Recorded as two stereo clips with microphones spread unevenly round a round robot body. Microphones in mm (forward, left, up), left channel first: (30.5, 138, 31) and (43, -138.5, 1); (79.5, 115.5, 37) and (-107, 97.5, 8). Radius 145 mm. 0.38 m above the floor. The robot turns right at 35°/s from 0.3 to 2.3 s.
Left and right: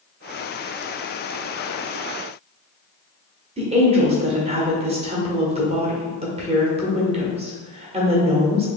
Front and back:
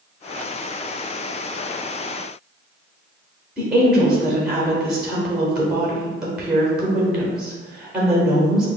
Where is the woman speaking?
110° right, 0.9 m.